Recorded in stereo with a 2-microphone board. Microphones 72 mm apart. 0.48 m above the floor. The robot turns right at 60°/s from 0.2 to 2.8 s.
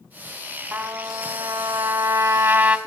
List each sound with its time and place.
0.7 s a trumpet: 155° right, 1.4 m; by 2.8 s 30° right, 1.4 m